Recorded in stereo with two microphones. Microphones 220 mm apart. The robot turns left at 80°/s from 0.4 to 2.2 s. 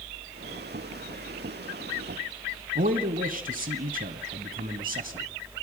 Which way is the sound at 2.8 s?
40° right (ahead or behind).